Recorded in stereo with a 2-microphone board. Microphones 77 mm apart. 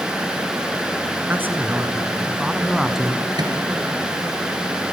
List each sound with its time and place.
1.3 s a man speaking: 25° right (ahead or behind), 2.5 m; by 3.3 s 5° left (ahead or behind), 1.5 m
3.4 s a microwave: 65° right (ahead or behind), 3.5 m